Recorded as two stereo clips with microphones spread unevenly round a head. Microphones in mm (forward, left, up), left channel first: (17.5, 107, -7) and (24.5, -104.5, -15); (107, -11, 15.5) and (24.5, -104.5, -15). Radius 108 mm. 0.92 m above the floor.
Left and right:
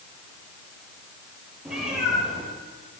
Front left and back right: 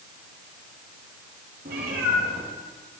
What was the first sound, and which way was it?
A cat meowing, 175° right.